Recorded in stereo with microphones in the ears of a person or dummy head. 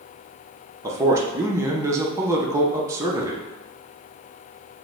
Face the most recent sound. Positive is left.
turn(degrees=-15)  # may be behind; listen again after turning